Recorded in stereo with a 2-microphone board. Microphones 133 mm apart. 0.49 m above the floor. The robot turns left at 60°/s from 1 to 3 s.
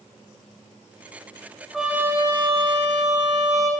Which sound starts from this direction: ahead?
A trumpet, at 1.7 s.